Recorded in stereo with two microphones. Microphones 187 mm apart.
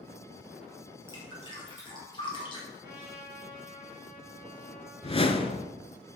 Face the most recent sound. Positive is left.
turn(degrees=30)  # may be behind; listen again after turning